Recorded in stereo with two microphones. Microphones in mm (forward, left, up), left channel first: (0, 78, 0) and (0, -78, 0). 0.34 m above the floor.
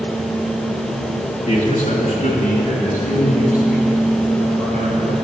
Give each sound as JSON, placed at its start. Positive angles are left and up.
{"t": 1.5, "sound": "a man speaking", "side_deg": 45, "distance_m": 1.2}